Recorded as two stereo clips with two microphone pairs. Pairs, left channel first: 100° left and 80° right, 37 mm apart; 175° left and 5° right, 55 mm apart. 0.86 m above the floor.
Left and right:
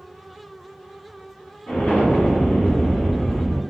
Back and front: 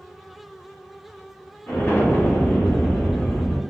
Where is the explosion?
135° left, 1.3 m.